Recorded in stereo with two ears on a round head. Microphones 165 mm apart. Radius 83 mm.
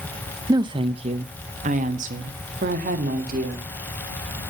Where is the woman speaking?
20° right (ahead or behind), 0.6 m; by 3.7 s 45° right (ahead or behind), 2.5 m.